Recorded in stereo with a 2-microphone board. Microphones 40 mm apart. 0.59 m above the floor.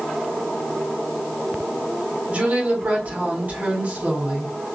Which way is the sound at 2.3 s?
45° right (ahead or behind).